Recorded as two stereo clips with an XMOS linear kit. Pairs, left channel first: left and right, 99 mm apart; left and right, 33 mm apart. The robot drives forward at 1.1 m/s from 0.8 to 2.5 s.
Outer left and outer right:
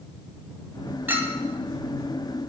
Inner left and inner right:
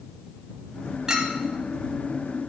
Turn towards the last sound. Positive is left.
turn(degrees=-10)  # may be behind; listen again after turning